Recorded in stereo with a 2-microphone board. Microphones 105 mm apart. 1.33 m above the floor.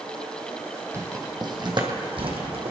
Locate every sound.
0.9 s footsteps: 30° right (ahead or behind), 1.9 m; by 2.7 s 65° right (ahead or behind), 3 m